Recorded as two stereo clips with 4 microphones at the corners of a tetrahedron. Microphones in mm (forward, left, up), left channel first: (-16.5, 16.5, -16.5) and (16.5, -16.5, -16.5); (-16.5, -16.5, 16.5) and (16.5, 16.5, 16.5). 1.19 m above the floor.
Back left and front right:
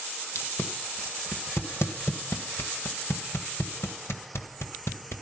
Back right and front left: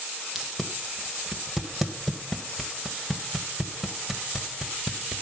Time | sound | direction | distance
0.3 | tape being pulled | 130° left | 1.8 m